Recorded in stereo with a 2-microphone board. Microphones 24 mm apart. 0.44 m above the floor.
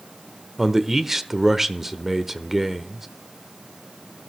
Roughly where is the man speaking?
Centre.